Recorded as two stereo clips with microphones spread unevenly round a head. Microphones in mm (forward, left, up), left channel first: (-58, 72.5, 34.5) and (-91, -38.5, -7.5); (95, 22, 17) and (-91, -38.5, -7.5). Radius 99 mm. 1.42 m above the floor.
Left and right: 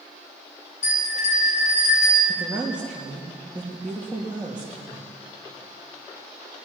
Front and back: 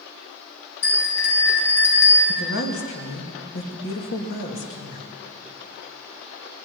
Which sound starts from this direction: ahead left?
A bell, at 0.8 s.